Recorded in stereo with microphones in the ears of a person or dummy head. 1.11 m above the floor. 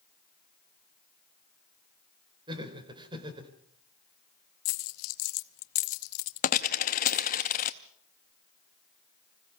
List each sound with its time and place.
2.5 s laughter: 30° right (ahead or behind), 4 m
4.7 s a dropped coin: 40° left (ahead or behind), 0.6 m